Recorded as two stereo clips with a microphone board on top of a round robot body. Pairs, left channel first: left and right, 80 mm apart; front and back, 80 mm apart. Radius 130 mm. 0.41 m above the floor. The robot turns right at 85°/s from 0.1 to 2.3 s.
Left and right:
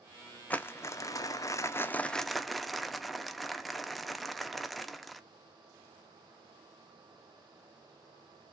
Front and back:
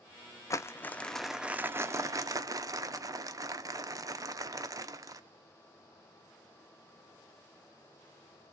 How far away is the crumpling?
About 0.6 m.